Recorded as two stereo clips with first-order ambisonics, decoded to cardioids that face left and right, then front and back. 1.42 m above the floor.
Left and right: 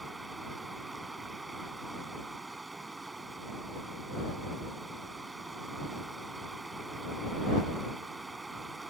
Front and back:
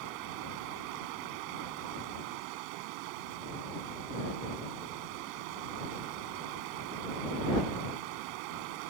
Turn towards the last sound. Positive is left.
turn(degrees=-170)